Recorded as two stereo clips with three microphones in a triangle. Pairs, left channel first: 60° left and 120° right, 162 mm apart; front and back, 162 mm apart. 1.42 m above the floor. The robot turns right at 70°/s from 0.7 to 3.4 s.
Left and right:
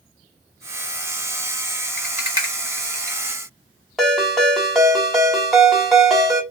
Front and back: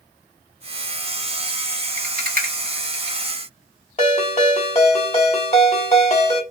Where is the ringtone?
30° right, 1.3 m.